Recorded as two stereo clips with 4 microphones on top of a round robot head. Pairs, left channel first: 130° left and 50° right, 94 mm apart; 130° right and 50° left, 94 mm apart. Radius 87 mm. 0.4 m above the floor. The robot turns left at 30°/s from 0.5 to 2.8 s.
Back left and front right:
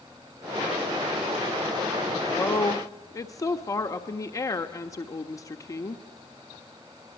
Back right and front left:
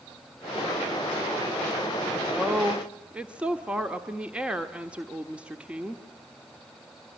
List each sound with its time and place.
2.4 s a woman speaking: 135° left, 1.4 m; by 6.0 s 120° left, 1.4 m